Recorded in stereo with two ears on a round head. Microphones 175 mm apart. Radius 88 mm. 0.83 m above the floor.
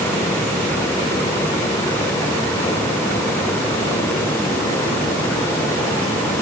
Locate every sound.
Only background noise.